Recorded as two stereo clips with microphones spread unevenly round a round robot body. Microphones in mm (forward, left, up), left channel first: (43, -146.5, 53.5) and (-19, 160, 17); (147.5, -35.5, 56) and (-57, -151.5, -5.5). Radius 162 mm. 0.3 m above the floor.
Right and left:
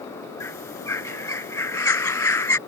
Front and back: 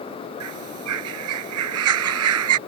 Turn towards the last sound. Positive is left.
turn(degrees=-160)